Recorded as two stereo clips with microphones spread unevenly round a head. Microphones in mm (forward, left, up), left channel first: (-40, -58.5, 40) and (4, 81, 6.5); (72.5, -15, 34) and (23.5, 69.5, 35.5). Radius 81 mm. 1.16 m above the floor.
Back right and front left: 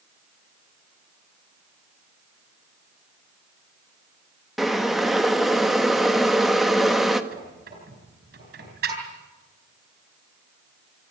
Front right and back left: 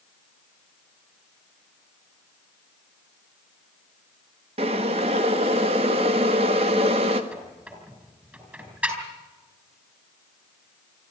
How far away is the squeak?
About 7 m.